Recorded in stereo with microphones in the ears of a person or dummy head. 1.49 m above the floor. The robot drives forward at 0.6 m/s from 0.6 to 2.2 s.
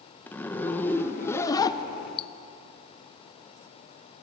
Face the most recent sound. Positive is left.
turn(degrees=30)  # may be behind; listen again after turning